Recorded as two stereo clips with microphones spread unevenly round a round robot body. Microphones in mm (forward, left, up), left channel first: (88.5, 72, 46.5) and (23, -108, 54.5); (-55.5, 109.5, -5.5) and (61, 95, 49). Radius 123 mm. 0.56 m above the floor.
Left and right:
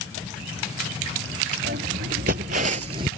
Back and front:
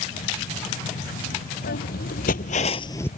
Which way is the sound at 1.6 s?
165° right.